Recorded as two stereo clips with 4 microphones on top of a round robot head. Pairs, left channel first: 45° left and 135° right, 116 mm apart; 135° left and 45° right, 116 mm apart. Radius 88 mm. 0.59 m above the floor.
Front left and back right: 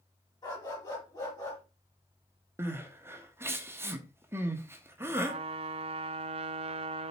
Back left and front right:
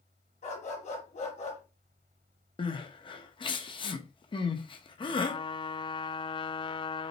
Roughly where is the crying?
Behind.